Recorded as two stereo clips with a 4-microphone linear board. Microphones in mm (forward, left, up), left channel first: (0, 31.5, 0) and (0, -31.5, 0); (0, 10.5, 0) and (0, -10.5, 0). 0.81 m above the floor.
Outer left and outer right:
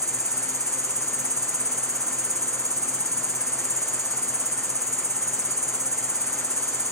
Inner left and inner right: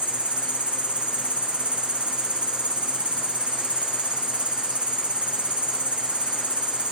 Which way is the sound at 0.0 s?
65° right (ahead or behind).